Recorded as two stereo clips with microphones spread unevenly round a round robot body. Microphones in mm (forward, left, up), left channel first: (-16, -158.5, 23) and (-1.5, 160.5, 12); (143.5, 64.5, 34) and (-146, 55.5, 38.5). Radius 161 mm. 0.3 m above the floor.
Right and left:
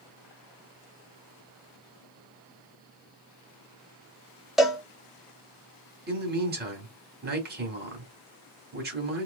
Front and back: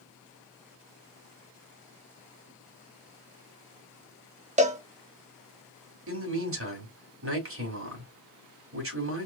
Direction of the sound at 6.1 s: 145° left.